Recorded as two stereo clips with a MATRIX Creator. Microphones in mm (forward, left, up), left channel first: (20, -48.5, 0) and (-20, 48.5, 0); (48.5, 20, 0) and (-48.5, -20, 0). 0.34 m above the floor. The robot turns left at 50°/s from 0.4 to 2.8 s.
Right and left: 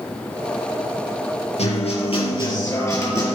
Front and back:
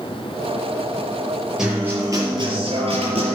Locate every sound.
1.6 s a guitar: 70° right, 4 m; by 3.4 s 130° right, 4 m